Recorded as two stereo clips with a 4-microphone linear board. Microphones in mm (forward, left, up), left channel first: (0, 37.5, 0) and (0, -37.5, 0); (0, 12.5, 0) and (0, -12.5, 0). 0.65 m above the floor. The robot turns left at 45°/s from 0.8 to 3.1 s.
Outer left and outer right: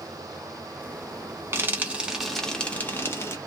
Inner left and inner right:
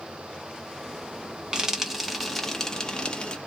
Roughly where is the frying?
Right.